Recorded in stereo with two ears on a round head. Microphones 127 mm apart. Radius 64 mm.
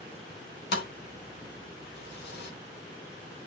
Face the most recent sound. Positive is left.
turn(degrees=80)